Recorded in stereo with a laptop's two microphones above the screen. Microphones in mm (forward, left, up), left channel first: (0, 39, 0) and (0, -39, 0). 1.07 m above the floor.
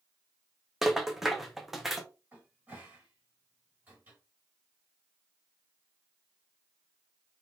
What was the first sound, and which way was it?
A rattle, centre (ahead or behind).